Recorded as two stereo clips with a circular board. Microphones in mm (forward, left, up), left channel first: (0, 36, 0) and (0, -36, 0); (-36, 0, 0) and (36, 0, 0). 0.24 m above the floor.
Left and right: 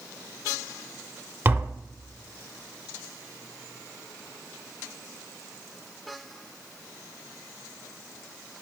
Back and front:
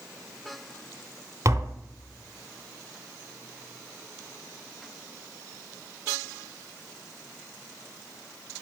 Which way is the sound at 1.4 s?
40° right.